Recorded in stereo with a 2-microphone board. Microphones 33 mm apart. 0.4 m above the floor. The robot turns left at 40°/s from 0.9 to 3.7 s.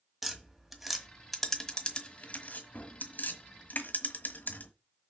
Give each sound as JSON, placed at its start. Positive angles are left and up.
{"t": 0.2, "sound": "tapping", "side_deg": -5, "distance_m": 1.4}